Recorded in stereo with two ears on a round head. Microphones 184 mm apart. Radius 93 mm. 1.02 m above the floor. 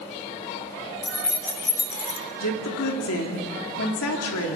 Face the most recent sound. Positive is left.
turn(degrees=80)